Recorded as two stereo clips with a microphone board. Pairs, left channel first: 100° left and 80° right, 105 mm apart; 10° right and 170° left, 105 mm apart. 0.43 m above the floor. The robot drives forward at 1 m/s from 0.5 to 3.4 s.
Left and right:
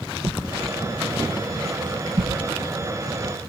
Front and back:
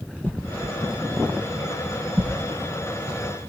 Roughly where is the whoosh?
Right.